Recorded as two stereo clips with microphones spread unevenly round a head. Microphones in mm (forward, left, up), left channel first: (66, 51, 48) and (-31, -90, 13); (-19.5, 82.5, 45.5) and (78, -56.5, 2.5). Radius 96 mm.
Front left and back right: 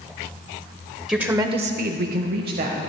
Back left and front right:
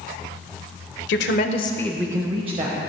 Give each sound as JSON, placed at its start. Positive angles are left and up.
{"t": 1.1, "sound": "a woman speaking", "azimuth_deg": 150, "distance_m": 1.1}